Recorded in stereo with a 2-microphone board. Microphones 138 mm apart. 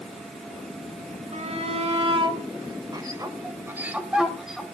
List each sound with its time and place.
1.3 s a shout: 55° right (ahead or behind), 1.9 m; by 4.6 s centre (ahead or behind), 1.9 m